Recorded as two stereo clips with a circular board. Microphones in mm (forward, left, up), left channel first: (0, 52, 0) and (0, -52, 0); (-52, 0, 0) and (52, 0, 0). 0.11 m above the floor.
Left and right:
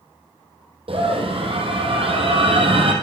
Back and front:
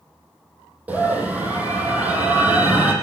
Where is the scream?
75° right, 4.5 m.